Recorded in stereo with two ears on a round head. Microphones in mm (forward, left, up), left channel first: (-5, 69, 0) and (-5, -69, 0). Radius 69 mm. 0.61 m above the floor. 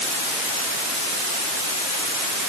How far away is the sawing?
No sawing in this recording.